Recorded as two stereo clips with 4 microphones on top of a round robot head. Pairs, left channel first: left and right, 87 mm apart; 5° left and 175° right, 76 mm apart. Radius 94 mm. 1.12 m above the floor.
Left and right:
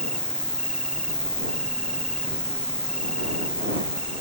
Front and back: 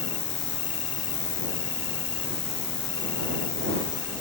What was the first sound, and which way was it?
An insect, 10° left.